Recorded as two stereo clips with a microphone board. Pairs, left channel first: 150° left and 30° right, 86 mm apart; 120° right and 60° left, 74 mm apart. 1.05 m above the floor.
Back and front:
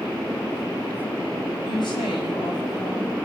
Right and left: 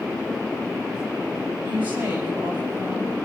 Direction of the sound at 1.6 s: 125° left.